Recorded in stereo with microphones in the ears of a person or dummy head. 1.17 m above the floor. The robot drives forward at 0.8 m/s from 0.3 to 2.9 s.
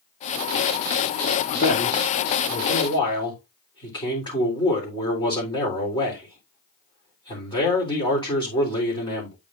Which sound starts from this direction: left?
A man speaking, at 1.5 s.